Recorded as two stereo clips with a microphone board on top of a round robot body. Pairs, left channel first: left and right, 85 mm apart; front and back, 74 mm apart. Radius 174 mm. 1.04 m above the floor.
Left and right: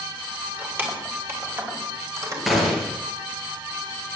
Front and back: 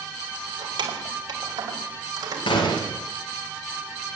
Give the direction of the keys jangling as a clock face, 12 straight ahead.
5 o'clock.